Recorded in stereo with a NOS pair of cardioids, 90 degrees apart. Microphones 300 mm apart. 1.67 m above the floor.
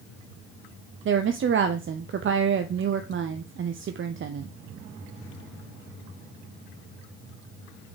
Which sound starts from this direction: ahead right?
A woman speaking, at 1.1 s.